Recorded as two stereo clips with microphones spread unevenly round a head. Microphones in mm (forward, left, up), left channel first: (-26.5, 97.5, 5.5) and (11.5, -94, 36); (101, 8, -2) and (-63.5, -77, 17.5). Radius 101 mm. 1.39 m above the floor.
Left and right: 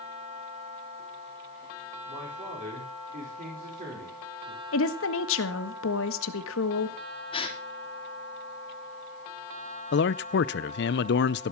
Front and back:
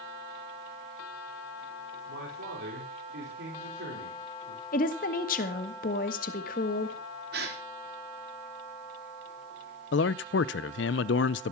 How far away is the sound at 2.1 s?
About 5 m.